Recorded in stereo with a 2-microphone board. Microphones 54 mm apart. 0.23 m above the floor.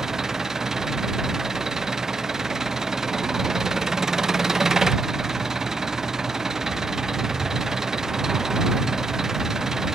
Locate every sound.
0.0 s an engine running: 10° right (ahead or behind)